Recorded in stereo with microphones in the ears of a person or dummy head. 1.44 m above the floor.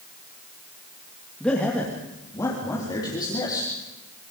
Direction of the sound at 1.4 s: 5° left (ahead or behind).